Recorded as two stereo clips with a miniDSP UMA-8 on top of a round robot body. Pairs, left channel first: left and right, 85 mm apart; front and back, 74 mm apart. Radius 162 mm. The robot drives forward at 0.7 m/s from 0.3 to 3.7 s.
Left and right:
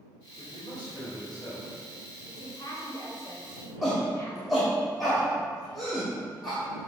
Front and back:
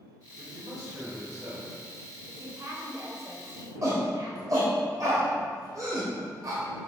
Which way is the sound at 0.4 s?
130° left.